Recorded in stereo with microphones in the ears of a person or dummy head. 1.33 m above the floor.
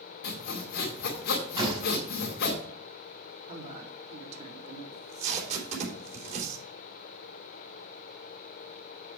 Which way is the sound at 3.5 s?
45° right (ahead or behind).